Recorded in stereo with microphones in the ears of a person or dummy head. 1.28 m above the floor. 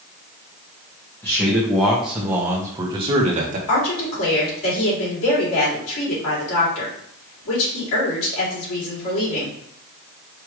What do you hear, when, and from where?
1.2 s a man speaking: 10° left (ahead or behind), 1.7 m; by 3.6 s 45° right (ahead or behind), 1.2 m
3.7 s a woman speaking: 85° left, 3 m